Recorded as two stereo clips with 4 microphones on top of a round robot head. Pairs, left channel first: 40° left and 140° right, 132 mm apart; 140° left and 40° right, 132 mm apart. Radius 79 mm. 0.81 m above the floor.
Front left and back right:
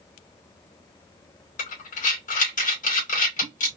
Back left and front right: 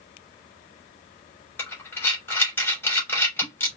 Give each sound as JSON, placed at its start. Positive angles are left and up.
{"t": 1.6, "sound": "breathing", "azimuth_deg": 60, "distance_m": 2.5}